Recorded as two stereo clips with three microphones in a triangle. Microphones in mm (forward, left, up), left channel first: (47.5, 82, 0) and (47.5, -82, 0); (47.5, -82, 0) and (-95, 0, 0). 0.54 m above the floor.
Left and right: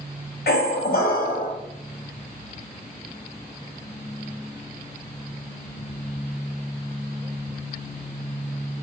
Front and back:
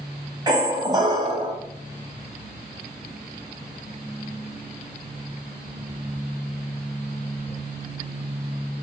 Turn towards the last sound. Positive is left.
turn(degrees=90)